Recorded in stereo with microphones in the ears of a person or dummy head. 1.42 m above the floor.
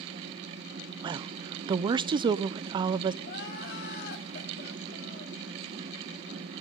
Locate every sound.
1.0 s a woman speaking: 20° right (ahead or behind), 0.6 m
3.2 s crying: 55° left (ahead or behind), 2.5 m